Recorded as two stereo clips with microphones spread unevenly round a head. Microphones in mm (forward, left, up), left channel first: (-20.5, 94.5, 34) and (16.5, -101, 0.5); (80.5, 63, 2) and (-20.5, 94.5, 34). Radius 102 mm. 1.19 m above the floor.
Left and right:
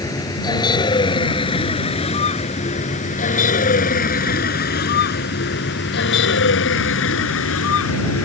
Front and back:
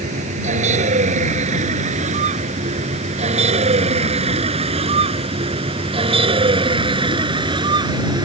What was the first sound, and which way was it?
A vehicle, 175° left.